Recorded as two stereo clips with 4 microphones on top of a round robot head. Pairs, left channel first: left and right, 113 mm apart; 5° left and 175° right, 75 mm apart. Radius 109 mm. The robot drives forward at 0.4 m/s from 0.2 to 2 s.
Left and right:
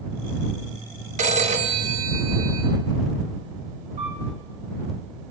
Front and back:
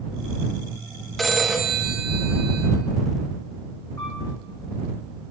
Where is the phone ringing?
85° right, 1.2 m; by 2.7 s 100° right, 1.2 m.